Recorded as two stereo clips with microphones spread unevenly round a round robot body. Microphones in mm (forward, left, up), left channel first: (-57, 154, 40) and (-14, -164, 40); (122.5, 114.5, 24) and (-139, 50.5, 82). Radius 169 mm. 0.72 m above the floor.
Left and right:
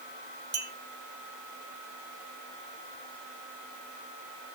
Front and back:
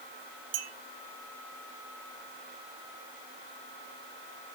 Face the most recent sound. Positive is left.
turn(degrees=-140)